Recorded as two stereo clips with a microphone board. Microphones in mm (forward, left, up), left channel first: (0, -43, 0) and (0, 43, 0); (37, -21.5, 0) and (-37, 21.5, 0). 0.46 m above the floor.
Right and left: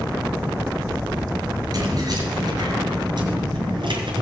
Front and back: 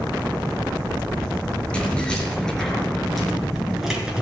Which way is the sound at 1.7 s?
50° left.